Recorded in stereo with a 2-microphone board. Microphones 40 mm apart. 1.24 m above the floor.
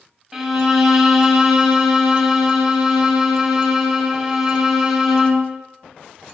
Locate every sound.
0.3 s a violin: 10° right (ahead or behind), 0.6 m